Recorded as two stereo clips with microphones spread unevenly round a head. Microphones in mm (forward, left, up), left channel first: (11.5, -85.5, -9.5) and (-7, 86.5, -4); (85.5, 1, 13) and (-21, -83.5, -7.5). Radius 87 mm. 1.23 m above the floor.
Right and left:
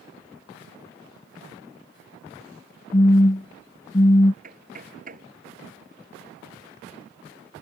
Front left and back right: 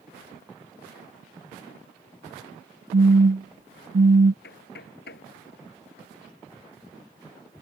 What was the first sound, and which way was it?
A phone buzzing, 145° right.